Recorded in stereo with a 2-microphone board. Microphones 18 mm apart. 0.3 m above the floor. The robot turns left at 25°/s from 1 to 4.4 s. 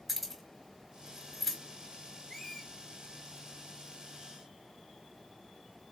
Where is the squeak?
15° left (ahead or behind), 0.8 m; by 2.7 s 25° left (ahead or behind), 0.8 m.